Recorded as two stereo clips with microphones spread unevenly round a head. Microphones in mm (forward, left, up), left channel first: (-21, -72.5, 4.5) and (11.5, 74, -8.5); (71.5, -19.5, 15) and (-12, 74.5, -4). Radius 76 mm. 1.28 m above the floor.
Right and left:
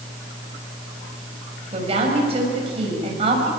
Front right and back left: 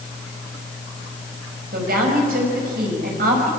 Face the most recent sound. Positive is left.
turn(degrees=130)